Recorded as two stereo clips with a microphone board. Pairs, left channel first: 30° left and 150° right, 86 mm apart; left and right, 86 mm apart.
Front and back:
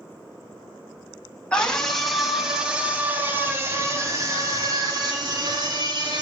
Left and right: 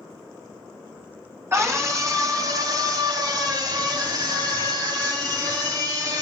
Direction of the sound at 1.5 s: 45° right.